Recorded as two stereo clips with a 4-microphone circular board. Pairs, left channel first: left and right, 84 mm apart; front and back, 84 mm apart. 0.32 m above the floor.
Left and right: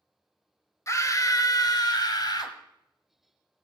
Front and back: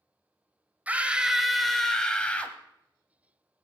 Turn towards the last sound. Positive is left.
turn(degrees=70)